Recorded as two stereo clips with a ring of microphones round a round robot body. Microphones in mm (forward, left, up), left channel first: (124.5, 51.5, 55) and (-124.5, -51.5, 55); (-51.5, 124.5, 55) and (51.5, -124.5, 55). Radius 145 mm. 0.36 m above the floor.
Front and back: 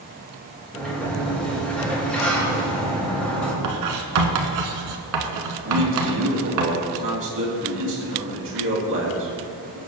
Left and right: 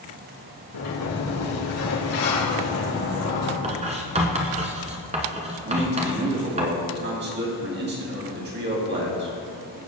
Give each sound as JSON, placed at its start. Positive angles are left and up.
{"t": 0.7, "sound": "a sliding door", "azimuth_deg": 110, "distance_m": 4.5}
{"t": 3.6, "sound": "writing", "azimuth_deg": -135, "distance_m": 1.4}
{"t": 5.7, "sound": "a man speaking", "azimuth_deg": -115, "distance_m": 2.5}